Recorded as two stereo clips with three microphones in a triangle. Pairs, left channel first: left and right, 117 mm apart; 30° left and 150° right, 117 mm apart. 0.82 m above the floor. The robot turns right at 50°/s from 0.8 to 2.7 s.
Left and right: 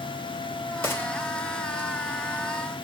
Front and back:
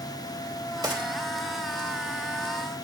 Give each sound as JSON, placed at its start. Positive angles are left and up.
{"t": 0.8, "sound": "a gunshot", "azimuth_deg": 155, "distance_m": 3.5}